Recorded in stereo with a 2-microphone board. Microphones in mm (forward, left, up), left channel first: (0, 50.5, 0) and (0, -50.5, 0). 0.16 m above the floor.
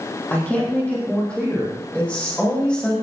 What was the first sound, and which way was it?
A woman speaking, 15° left (ahead or behind).